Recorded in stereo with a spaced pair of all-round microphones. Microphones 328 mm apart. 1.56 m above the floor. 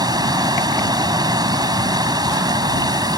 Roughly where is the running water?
Centre.